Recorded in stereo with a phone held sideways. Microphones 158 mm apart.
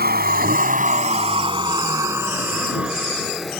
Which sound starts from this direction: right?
A vehicle, at 0.0 s.